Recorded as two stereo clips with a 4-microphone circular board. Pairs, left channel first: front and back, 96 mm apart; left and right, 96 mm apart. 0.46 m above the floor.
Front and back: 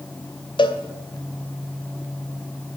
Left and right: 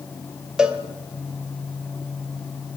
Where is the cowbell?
10° right, 1.8 m.